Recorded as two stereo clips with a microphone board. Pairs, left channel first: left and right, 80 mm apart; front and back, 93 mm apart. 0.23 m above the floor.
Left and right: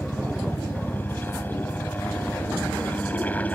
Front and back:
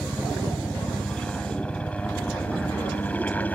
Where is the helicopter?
75° left; by 3.5 s 50° left.